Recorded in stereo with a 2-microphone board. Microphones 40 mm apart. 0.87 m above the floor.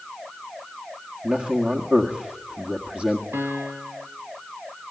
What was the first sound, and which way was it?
A man speaking, 35° right (ahead or behind).